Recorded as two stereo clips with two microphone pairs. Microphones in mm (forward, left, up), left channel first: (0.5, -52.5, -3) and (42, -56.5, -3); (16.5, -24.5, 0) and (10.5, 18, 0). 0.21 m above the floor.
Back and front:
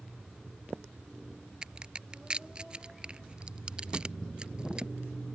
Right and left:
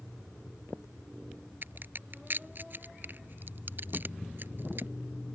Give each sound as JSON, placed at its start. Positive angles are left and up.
{"t": 1.6, "sound": "a crack", "azimuth_deg": 60}